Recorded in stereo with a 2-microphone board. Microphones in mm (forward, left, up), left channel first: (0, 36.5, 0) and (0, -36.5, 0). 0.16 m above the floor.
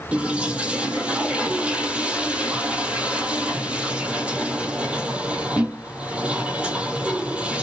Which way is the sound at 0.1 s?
15° right (ahead or behind).